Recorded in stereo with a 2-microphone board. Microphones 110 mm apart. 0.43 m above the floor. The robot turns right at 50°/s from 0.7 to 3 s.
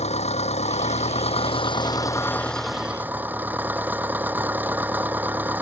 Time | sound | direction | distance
0.0 | an engine running | 80° left | ?